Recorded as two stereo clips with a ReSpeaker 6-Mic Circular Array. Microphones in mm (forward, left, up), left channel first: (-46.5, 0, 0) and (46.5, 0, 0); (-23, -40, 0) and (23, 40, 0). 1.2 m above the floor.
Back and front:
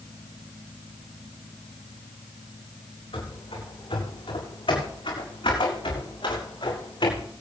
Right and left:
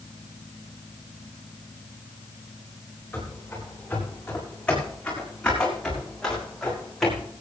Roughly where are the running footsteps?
Behind.